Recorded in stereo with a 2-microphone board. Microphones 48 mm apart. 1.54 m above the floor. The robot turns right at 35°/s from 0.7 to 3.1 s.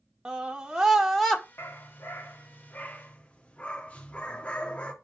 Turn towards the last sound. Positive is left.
turn(degrees=140)